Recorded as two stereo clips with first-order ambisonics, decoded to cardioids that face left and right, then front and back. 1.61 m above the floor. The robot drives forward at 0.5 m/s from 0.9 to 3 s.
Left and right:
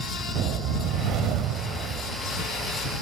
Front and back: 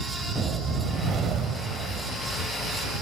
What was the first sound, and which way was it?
A whoosh, 120° right.